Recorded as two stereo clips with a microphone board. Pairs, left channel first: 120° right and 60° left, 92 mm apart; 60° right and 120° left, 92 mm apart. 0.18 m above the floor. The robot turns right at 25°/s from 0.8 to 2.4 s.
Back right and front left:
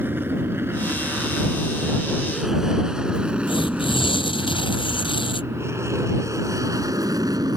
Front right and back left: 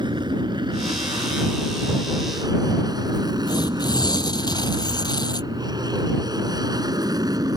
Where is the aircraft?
120° left; by 7.6 s 90° left.